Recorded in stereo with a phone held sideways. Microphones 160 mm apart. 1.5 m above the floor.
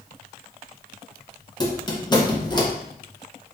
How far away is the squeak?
About 0.7 m.